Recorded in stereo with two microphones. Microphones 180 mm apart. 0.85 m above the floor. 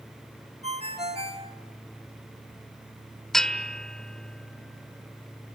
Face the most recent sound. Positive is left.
turn(degrees=5)  # may be behind; listen again after turning